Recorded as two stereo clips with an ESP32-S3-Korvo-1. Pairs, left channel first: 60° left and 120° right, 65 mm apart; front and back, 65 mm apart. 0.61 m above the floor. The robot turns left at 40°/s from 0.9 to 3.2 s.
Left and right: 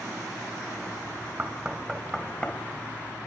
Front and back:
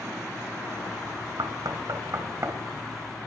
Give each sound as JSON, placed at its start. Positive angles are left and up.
{"t": 1.4, "sound": "knocking", "azimuth_deg": 175, "distance_m": 2.5}